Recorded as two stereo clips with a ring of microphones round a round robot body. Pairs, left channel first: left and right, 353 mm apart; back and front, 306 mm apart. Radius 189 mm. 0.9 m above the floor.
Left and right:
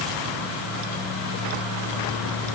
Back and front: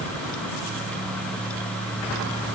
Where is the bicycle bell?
No bicycle bell in this recording.